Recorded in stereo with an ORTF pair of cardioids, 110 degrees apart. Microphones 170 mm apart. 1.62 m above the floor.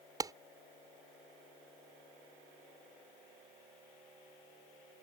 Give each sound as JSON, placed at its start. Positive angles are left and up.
{"t": 0.2, "sound": "a clap", "azimuth_deg": -20}